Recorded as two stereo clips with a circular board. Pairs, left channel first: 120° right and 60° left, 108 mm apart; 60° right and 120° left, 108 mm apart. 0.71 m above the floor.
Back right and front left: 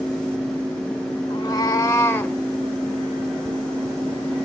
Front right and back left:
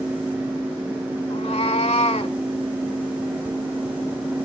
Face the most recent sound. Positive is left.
turn(degrees=-50)